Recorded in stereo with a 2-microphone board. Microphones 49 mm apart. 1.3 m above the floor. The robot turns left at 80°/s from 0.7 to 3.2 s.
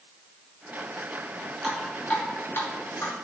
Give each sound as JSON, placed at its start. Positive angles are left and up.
{"t": 1.6, "sound": "dripping", "side_deg": -10, "distance_m": 2.5}